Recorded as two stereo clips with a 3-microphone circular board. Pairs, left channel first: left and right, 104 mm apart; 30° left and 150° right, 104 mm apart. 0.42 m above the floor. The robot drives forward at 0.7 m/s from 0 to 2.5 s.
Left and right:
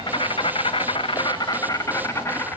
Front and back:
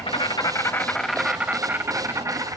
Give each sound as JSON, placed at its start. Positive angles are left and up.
{"t": 0.0, "sound": "an insect", "azimuth_deg": 50, "distance_m": 0.8}